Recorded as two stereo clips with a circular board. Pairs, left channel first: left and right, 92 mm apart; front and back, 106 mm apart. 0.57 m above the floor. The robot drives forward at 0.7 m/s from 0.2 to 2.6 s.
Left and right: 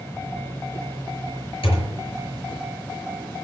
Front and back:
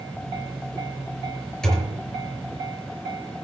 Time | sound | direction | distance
1.6 | a thud | 85° left | 5 m